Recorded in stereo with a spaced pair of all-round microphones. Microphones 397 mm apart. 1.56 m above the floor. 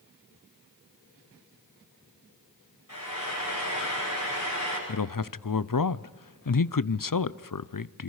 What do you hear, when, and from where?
2.9 s frying: 50° left (ahead or behind), 9.5 m
4.9 s a man speaking: 55° left (ahead or behind), 0.6 m